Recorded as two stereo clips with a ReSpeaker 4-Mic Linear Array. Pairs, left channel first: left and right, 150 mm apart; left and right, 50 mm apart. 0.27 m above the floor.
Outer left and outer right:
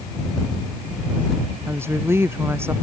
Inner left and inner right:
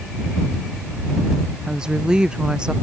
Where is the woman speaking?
15° right (ahead or behind).